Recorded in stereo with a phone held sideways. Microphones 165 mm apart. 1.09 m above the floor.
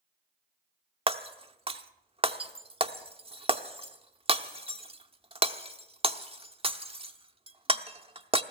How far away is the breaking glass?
About 0.7 m.